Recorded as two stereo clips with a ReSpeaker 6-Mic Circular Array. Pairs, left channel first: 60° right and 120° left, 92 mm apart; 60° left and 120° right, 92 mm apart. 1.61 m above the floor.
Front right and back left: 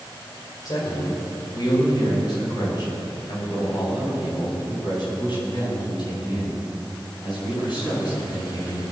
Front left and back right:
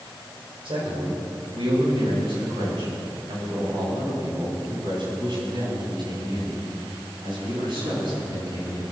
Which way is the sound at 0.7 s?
105° right.